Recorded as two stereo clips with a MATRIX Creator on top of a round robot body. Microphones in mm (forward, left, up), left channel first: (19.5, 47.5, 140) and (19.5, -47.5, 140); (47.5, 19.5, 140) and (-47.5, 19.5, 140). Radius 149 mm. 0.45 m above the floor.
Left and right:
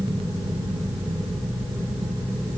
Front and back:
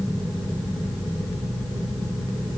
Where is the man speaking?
I don't hear a man speaking.